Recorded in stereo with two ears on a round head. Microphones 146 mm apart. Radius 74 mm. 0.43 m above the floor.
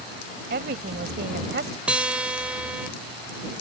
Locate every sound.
0.5 s a woman speaking: 60° right (ahead or behind)
1.9 s a guitar: 5° right (ahead or behind)